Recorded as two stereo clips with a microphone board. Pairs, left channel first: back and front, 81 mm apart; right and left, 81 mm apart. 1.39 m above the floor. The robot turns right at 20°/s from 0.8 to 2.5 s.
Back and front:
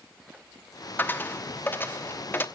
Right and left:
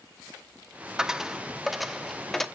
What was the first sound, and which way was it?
A dropped coin, 160° left.